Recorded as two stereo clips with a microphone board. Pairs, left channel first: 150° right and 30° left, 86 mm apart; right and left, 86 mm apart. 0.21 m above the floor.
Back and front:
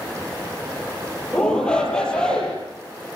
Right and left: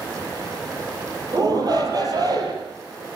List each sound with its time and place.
1.3 s a shout: 130° left, 7 m